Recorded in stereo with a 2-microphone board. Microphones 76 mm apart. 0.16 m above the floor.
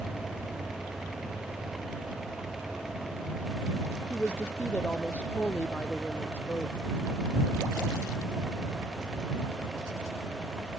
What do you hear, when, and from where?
4.1 s a woman speaking: 20° left (ahead or behind)